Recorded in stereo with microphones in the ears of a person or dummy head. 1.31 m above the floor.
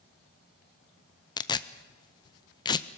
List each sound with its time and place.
1.4 s tearing paper: 20° left (ahead or behind), 0.6 m